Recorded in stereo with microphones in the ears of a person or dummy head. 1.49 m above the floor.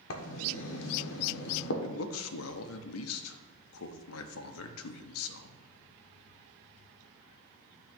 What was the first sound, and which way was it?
Writing, 65° left (ahead or behind).